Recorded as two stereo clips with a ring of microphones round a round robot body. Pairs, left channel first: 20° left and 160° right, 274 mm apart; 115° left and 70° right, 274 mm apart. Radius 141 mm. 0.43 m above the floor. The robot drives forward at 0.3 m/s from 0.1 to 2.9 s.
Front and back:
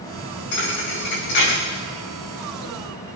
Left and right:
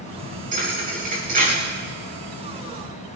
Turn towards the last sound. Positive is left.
turn(degrees=-5)